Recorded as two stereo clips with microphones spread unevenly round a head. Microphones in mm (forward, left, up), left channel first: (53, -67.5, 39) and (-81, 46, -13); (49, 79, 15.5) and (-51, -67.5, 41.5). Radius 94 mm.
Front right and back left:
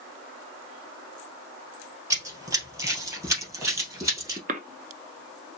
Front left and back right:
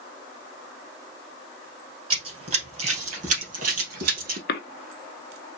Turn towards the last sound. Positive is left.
turn(degrees=85)